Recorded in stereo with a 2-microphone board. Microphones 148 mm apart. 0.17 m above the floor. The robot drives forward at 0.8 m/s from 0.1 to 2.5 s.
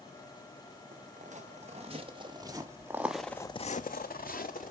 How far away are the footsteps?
About 1.9 m.